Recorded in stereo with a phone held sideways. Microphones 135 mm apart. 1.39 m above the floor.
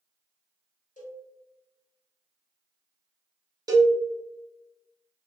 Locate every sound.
1.0 s a cowbell: 85° left, 1.1 m
3.7 s a cowbell: 30° right (ahead or behind), 0.7 m